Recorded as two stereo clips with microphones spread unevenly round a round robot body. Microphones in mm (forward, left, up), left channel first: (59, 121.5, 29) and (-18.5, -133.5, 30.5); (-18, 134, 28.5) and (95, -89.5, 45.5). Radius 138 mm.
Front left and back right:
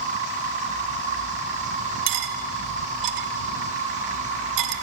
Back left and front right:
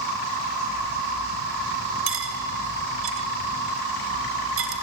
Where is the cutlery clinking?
110° right, 1.3 m.